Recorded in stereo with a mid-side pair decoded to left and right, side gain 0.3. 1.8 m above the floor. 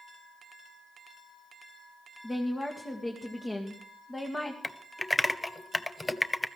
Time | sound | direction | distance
2.2 | a woman speaking | 40° left | 1.9 m
4.6 | typing on a keyboard | 30° left | 0.8 m